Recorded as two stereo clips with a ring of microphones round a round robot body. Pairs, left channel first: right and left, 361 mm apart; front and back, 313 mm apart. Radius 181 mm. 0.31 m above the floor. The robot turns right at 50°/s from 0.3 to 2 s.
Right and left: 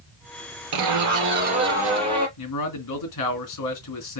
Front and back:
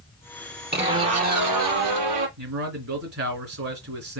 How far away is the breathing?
I don't hear breathing.